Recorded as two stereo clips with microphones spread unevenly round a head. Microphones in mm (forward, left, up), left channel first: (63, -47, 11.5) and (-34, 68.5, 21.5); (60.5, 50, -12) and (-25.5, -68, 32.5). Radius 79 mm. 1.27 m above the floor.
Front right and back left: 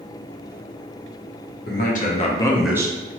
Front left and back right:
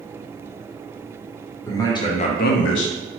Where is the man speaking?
20° right, 0.9 m; by 3.0 s 70° left, 0.5 m.